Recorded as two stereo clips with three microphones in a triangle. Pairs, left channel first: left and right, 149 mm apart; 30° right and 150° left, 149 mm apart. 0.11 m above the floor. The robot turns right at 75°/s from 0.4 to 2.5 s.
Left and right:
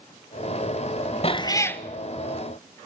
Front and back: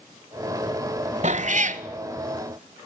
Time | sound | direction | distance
1.2 | a cat meowing | 125° left | 0.7 m